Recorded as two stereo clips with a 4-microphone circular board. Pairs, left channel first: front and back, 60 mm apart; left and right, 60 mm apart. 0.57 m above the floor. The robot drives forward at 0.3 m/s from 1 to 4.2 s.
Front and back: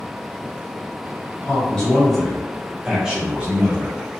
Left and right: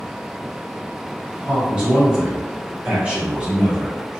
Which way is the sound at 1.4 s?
50° right.